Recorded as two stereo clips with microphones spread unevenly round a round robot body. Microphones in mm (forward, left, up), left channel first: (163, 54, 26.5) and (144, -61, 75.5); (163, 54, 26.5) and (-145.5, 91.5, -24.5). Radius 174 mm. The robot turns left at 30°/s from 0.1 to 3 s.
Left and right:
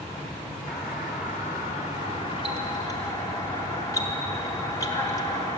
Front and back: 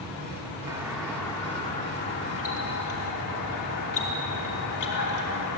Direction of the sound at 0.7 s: 95° left.